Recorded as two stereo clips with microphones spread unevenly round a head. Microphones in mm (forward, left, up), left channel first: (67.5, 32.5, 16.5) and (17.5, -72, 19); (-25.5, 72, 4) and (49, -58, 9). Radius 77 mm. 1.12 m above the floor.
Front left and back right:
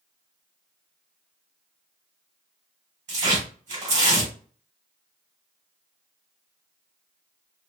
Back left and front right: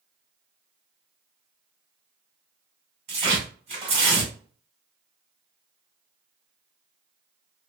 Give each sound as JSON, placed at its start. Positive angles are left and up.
{"t": 3.1, "sound": "tearing paper", "azimuth_deg": -110, "distance_m": 1.8}